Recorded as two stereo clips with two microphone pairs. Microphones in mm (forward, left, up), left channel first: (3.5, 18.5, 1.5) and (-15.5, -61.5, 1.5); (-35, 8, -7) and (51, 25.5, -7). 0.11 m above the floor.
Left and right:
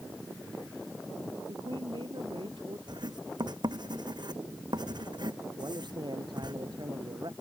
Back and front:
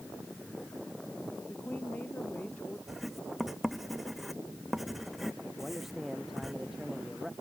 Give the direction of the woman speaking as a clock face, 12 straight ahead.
3 o'clock.